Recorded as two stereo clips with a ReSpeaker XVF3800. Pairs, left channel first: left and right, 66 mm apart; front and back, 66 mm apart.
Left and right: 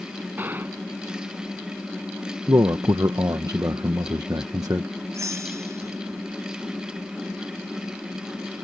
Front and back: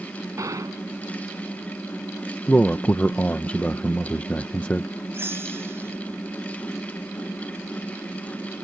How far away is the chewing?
No chewing in this recording.